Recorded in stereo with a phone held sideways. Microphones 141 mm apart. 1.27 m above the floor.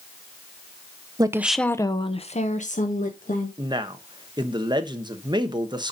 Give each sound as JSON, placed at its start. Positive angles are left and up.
{"t": 1.2, "sound": "a woman speaking", "side_deg": -30, "distance_m": 0.7}
{"t": 3.6, "sound": "a man speaking", "side_deg": -30, "distance_m": 1.1}